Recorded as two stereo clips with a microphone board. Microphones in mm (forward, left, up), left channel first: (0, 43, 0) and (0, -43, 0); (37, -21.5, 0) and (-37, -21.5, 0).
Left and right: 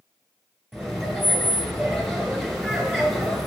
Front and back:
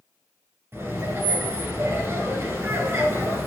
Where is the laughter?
175° left, 1.8 m.